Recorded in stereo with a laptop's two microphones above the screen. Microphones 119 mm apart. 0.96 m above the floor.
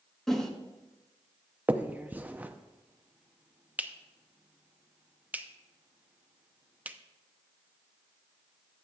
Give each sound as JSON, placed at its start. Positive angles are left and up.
{"t": 0.3, "sound": "a whoosh", "side_deg": 5, "distance_m": 1.3}
{"t": 1.7, "sound": "a finger snap", "side_deg": -15, "distance_m": 0.6}